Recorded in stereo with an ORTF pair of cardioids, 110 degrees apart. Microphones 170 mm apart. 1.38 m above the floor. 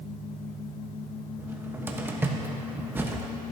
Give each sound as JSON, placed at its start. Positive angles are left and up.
{"t": 1.4, "sound": "a cupboard door", "azimuth_deg": -15, "distance_m": 1.0}